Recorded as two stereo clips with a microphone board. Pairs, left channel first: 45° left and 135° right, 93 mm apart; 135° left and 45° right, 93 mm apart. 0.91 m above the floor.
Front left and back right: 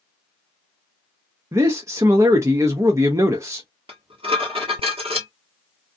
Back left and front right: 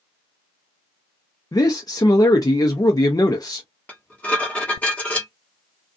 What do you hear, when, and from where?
1.5 s a man speaking: 175° left, 0.6 m
3.9 s dishes clattering: 150° right, 1.1 m